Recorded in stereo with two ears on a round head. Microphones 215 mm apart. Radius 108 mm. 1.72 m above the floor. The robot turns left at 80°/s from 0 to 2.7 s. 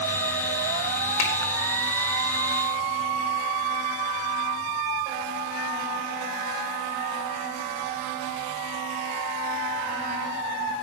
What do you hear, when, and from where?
1.2 s a finger snap: 65° left (ahead or behind), 4 m; by 1.3 s 60° left (ahead or behind), 4 m